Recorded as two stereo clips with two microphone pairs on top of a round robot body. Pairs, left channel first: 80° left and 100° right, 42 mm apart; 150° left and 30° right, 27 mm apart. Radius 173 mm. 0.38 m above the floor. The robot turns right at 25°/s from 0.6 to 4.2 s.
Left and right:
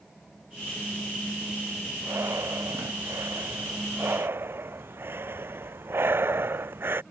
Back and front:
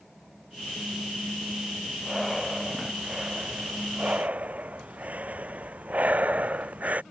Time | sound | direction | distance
2.0 | breathing | 125° right | ?